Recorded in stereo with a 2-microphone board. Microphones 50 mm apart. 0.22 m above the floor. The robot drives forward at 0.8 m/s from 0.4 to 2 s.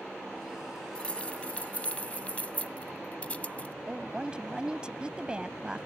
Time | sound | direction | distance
0.9 | keys jangling | 20° left (ahead or behind) | ?
3.9 | a woman speaking | 20° right (ahead or behind) | ?